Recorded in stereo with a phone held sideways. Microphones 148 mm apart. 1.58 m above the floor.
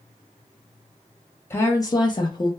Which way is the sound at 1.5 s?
15° left (ahead or behind).